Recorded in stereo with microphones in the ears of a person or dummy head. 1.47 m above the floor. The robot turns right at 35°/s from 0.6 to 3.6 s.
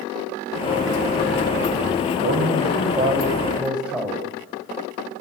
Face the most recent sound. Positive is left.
turn(degrees=-5)